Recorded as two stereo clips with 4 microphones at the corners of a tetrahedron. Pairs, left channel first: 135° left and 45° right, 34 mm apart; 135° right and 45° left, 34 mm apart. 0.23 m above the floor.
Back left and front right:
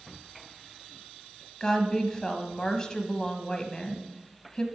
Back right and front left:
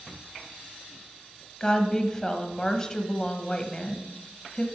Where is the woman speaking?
175° left, 1.1 m.